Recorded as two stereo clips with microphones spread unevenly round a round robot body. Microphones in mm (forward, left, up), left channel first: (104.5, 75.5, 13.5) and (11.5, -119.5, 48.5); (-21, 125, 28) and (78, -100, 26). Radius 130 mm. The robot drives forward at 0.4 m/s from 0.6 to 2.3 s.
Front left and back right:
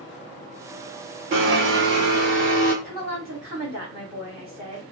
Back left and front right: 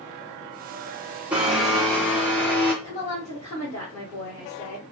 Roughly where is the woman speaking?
Behind.